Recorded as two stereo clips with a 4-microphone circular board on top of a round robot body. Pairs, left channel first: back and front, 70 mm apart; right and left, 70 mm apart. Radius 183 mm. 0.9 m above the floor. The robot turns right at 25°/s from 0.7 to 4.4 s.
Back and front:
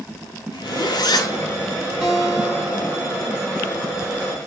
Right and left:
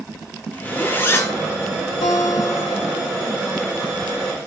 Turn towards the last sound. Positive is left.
turn(degrees=-40)